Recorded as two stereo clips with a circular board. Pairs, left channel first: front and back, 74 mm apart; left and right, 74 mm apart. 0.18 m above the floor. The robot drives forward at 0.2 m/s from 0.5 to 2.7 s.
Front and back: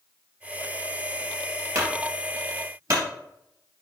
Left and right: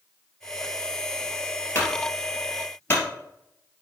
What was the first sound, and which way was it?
A clunk, 150° left.